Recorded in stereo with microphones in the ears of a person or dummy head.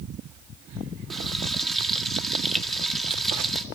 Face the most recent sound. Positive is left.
turn(degrees=0)  # may be behind; listen again after turning